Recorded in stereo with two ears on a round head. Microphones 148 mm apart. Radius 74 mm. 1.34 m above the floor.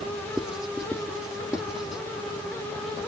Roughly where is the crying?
No crying in this recording.